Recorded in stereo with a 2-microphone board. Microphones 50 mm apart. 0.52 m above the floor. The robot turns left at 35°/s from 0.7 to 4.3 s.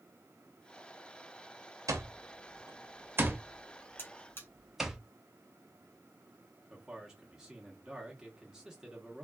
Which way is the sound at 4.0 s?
40° left (ahead or behind).